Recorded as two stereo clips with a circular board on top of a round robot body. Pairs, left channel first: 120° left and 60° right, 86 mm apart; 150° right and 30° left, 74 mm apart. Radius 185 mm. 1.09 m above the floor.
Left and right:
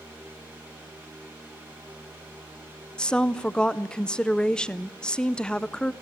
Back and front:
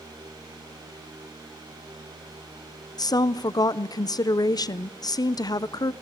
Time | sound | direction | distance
3.0 | a woman speaking | 160° right | 0.7 m